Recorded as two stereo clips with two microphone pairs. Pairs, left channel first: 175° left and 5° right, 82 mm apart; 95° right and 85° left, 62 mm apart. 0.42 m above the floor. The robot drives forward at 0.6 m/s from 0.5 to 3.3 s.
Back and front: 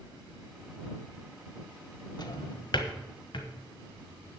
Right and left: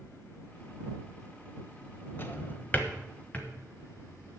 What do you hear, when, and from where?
2.2 s a drawer: 150° right, 1.0 m; by 3.5 s 165° right, 1.6 m